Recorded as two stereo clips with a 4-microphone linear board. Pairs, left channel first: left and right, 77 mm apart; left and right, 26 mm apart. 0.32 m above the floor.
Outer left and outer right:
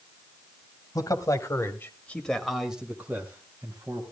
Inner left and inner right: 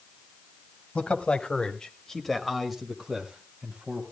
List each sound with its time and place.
0.9 s a man speaking: 50° left (ahead or behind), 1.8 m; by 4.0 s 40° right (ahead or behind), 2 m